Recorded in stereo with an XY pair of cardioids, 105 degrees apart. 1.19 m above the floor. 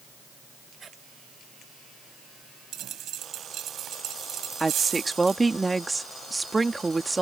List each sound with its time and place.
0.8 s footsteps: 40° right
2.7 s a dropped coin: 70° right
4.6 s a woman speaking: 20° right